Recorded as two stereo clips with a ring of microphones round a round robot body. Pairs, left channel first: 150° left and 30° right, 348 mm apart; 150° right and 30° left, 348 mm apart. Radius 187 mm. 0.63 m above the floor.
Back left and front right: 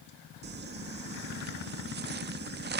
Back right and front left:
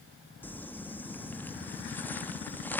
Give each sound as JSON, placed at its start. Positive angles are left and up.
{"t": 0.4, "sound": "crumpling", "azimuth_deg": -70}